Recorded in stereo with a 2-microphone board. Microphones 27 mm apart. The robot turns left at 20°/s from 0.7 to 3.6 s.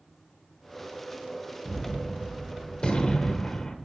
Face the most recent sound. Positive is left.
turn(degrees=50)